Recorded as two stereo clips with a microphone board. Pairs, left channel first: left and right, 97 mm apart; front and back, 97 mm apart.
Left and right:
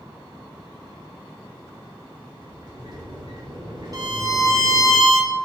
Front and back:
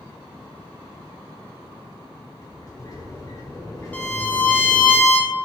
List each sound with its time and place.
2.4 s a sliding door: 50° right, 2 m
3.9 s a violin: 65° right, 1.3 m